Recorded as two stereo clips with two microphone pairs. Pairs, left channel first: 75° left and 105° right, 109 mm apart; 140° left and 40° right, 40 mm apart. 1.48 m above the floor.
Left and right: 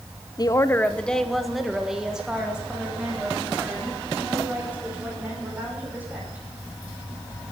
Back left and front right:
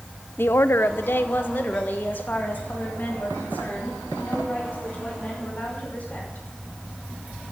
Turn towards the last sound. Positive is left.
turn(degrees=-175)